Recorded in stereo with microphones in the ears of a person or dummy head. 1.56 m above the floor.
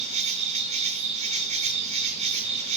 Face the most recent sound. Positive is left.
turn(degrees=-35)  # may be behind; listen again after turning